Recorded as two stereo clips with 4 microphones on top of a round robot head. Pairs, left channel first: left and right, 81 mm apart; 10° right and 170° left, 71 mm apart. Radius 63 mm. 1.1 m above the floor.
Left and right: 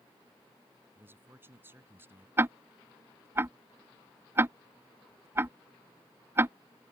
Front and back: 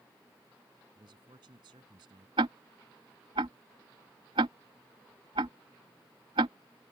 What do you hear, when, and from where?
0.9 s a man speaking: 150° right
2.4 s ticking: 150° right